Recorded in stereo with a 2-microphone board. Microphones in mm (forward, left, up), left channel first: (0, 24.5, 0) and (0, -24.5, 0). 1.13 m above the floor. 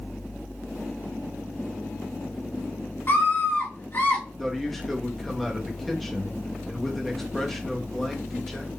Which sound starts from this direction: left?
A scream, at 3.1 s.